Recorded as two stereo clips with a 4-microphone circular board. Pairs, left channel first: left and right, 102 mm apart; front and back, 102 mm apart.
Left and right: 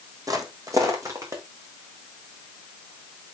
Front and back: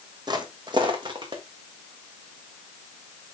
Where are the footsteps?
140° right, 1.7 m; by 1.4 s 150° right, 2.5 m.